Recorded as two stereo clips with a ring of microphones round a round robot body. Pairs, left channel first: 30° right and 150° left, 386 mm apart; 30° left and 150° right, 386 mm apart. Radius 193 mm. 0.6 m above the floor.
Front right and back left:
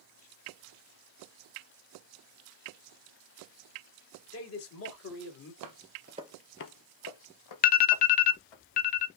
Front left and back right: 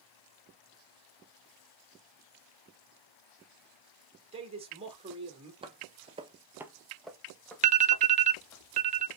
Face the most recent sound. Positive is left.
turn(degrees=-90)